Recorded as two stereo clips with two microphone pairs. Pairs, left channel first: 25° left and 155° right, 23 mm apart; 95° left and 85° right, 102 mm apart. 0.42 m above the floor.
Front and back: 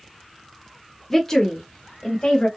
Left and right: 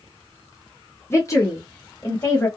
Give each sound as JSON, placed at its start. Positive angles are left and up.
{"t": 1.1, "sound": "a woman speaking", "azimuth_deg": 90, "distance_m": 1.2}